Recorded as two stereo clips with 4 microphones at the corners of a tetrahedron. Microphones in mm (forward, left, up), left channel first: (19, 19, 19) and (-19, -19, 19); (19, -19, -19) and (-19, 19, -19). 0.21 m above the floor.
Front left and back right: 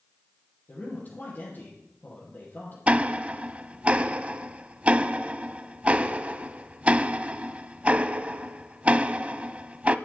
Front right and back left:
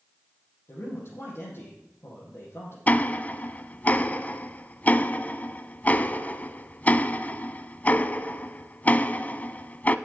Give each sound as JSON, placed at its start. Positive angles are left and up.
{"t": 0.7, "sound": "a man speaking", "azimuth_deg": -5, "distance_m": 5.5}
{"t": 2.9, "sound": "ticking", "azimuth_deg": -80, "distance_m": 0.5}